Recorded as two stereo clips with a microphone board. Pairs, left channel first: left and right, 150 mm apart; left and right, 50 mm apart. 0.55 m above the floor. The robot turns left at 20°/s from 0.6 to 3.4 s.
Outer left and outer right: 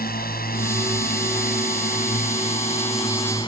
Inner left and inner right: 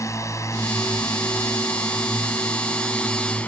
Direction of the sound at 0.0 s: 75° left (ahead or behind).